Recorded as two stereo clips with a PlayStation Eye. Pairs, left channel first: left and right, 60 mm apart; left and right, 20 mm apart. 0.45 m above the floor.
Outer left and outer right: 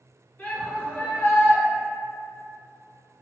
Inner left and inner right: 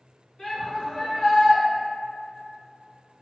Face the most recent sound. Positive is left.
turn(degrees=30)  # may be behind; listen again after turning